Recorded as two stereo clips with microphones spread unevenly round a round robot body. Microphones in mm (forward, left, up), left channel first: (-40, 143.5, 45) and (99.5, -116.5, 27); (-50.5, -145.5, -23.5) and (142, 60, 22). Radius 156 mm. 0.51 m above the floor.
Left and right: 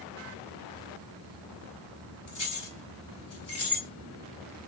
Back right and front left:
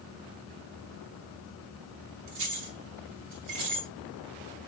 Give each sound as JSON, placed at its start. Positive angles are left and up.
{"t": 2.3, "sound": "keys jangling", "azimuth_deg": 85, "distance_m": 2.5}